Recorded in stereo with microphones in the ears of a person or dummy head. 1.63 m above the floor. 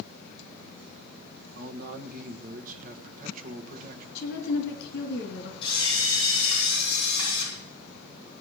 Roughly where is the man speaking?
Right.